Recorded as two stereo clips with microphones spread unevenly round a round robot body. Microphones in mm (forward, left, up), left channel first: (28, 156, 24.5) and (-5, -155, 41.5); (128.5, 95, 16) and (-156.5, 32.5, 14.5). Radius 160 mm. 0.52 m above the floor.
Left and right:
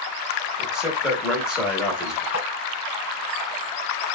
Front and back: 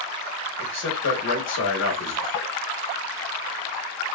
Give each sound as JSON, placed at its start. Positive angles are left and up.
{"t": 0.6, "sound": "a man speaking", "azimuth_deg": -5, "distance_m": 1.1}
{"t": 2.3, "sound": "tapping", "azimuth_deg": -30, "distance_m": 1.3}